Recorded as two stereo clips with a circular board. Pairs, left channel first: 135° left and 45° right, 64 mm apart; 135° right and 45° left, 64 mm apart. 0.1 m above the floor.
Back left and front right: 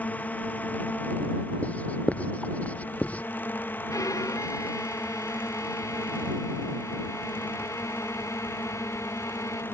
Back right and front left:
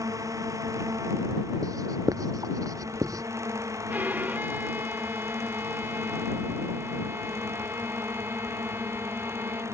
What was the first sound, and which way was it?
A drone, 70° left.